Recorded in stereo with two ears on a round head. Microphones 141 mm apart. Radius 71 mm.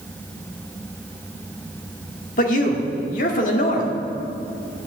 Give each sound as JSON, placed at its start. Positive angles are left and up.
{"t": 2.4, "sound": "a man speaking", "side_deg": 55, "distance_m": 1.6}